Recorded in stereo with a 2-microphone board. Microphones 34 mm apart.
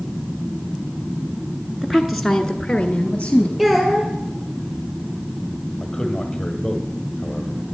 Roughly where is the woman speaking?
Centre.